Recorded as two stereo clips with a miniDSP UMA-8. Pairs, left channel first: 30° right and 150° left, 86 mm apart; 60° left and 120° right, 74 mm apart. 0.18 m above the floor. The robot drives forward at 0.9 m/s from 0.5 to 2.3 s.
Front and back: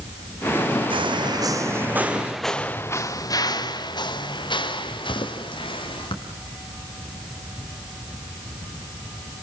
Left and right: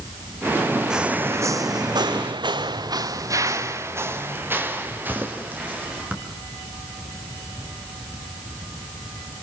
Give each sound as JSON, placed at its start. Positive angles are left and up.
{"t": 0.9, "sound": "footsteps", "azimuth_deg": 160, "distance_m": 0.8}